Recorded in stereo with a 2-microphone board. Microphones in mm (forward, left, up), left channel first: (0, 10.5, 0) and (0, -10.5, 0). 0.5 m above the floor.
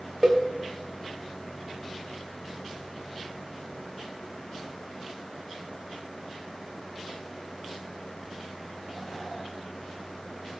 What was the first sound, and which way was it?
A cowbell, 40° right (ahead or behind).